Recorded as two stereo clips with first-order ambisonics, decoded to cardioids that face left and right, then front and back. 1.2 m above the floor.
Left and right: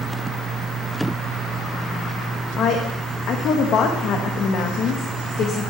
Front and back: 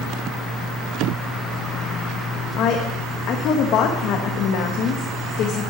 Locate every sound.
2.6 s a woman speaking: 40° left, 1.1 m